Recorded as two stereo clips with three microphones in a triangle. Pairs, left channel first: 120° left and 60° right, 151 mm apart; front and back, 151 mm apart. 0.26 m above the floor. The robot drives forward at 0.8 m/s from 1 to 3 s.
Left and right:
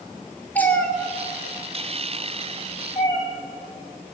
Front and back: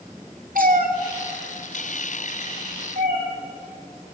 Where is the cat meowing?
160° right, 1.3 m; by 3.2 s 170° right, 3 m.